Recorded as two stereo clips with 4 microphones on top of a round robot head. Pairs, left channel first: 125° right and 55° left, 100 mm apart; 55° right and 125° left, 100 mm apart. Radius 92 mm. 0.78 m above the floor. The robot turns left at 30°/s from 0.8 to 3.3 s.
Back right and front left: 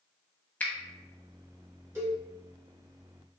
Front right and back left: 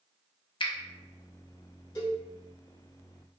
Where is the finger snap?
55° right, 0.6 m.